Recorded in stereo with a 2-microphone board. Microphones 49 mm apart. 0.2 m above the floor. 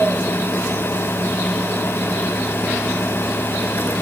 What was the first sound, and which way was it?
Only background noise.